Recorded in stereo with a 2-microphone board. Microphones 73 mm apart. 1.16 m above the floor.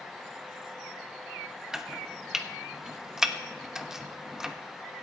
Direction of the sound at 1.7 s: 10° right (ahead or behind).